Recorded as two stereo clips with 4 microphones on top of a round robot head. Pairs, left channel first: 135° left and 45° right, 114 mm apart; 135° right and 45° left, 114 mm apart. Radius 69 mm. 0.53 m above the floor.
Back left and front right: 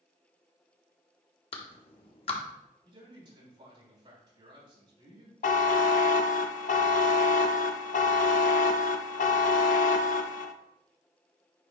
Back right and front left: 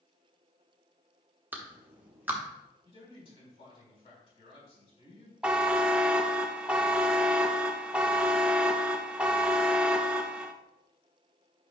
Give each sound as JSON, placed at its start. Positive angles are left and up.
{"t": 1.5, "sound": "a clap", "azimuth_deg": 115, "distance_m": 1.2}
{"t": 2.9, "sound": "a man speaking", "azimuth_deg": -95, "distance_m": 4.0}
{"t": 5.4, "sound": "a buzzer", "azimuth_deg": 125, "distance_m": 0.5}